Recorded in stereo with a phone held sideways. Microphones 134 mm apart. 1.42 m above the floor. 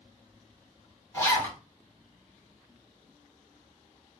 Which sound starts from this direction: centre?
A zipper, at 1.1 s.